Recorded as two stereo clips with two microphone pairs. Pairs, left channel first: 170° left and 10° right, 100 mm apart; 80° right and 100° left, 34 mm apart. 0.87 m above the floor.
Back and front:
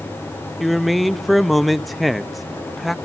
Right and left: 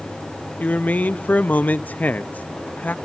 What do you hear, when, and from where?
0.6 s a man speaking: 100° right, 0.6 m